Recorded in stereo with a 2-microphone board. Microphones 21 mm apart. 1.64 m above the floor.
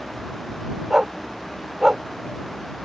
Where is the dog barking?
25° right (ahead or behind).